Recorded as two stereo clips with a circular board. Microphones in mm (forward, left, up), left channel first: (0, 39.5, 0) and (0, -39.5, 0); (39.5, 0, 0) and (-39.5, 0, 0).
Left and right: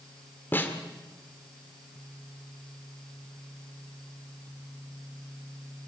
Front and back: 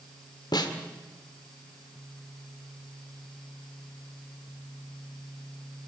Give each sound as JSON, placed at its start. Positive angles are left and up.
{"t": 0.5, "sound": "a snare drum", "azimuth_deg": 25, "distance_m": 1.9}